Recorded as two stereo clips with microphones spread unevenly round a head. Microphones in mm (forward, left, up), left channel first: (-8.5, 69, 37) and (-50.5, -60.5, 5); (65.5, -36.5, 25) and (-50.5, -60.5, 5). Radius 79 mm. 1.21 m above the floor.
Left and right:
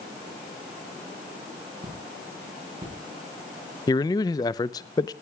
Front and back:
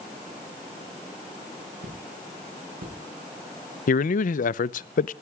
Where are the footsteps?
170° right, 8.5 m.